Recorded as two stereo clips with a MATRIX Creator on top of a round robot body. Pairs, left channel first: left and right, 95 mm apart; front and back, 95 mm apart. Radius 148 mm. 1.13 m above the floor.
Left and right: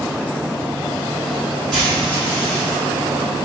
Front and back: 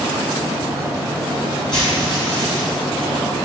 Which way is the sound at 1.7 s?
10° left.